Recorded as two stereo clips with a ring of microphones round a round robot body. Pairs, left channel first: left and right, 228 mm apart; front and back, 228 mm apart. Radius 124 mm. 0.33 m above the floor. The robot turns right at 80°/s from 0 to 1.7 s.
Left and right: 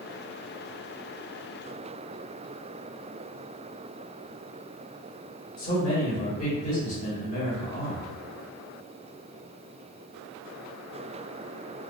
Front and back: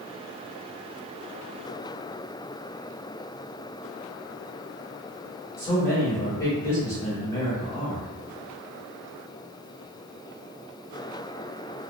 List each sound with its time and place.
5.6 s a man speaking: 65° left, 1.7 m